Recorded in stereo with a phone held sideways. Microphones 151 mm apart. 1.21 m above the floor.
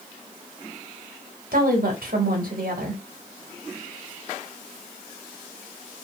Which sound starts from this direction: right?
A woman speaking, at 1.5 s.